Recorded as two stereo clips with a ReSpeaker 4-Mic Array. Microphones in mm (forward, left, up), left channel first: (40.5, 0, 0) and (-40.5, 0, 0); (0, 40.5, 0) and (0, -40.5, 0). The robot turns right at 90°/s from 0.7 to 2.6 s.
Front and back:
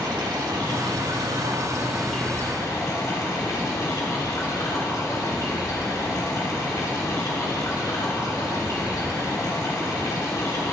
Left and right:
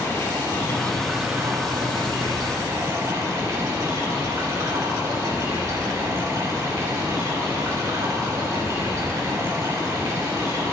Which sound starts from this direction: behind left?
Running water, at 0.0 s.